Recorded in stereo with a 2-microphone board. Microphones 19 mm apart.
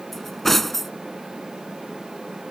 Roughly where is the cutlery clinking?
Centre.